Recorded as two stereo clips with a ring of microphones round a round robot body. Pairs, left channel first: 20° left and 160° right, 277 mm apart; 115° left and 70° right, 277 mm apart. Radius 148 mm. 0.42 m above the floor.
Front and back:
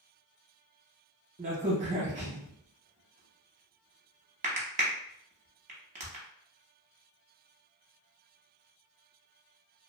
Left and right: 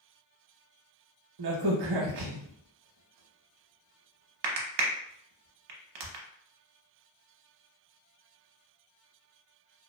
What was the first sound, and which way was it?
A crack, 90° right.